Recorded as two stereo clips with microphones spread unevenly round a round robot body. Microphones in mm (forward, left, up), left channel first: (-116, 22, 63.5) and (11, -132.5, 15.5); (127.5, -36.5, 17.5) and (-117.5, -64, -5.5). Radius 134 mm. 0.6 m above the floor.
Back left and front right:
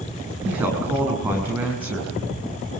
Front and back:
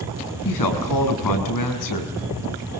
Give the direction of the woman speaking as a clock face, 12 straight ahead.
11 o'clock.